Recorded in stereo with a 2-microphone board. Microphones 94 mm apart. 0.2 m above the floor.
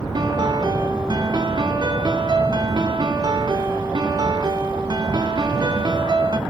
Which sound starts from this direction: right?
A piano, at 0.1 s.